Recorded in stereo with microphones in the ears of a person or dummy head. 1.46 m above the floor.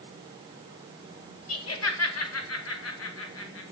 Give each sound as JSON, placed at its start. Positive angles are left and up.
{"t": 1.5, "sound": "laughter", "side_deg": 70, "distance_m": 2.0}